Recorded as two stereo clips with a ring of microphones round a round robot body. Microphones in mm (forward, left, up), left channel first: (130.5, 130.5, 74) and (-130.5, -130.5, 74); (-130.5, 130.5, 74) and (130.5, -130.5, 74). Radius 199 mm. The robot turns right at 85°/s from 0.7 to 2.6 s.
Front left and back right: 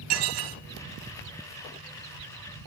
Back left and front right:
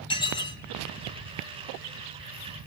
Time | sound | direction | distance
0.1 | dishes clattering | 145° right | 2.5 m